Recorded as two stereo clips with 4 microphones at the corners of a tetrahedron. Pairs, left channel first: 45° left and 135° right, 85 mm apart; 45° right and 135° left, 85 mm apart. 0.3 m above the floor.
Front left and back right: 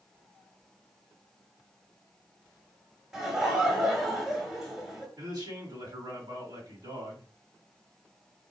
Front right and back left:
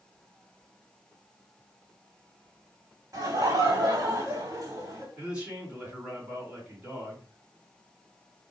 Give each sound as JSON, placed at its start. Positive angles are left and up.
{"t": 3.1, "sound": "laughter", "azimuth_deg": 145, "distance_m": 1.9}
{"t": 5.2, "sound": "a man speaking", "azimuth_deg": -150, "distance_m": 2.5}